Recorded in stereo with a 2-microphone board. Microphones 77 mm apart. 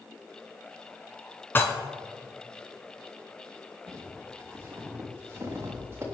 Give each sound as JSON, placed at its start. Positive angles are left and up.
{"t": 1.6, "sound": "dishes clattering", "side_deg": 30, "distance_m": 2.0}
{"t": 3.9, "sound": "footsteps", "side_deg": -35, "distance_m": 4.0}